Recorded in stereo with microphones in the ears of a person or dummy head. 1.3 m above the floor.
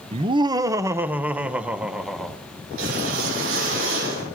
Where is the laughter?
30° right (ahead or behind), 0.7 m; by 2.4 s centre (ahead or behind), 1.6 m.